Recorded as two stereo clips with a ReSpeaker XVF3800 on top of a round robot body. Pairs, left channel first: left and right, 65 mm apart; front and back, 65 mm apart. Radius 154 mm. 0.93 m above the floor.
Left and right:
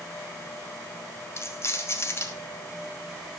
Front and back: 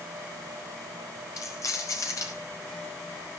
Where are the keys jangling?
40° left, 1.4 m.